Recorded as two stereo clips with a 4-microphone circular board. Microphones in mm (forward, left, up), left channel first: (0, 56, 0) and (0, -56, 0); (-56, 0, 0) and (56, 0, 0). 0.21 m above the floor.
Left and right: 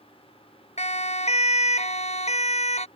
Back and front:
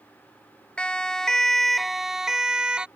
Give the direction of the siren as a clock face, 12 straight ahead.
9 o'clock.